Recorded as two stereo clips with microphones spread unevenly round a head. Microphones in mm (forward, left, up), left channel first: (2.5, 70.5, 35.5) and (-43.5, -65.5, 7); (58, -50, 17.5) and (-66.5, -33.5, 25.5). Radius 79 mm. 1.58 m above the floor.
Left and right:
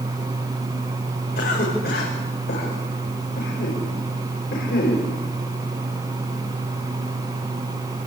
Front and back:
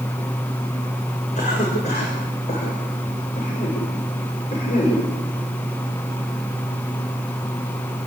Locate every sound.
1.4 s a cough: 40° left, 7 m